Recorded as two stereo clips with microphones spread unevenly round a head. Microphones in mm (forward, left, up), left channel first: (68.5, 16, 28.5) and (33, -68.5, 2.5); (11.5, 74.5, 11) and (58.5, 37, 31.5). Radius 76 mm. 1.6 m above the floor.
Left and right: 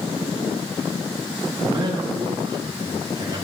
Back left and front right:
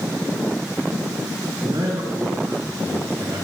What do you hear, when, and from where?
1.6 s a man speaking: 80° right, 4.5 m